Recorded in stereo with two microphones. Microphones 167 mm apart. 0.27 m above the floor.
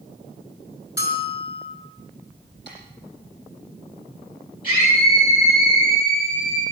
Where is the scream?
55° left (ahead or behind), 9 m.